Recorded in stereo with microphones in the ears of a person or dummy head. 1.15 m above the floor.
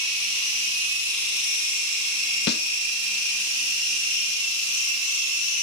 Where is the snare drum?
45° left (ahead or behind), 0.6 m.